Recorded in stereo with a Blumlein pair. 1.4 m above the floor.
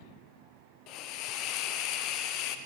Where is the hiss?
40° left, 0.7 m.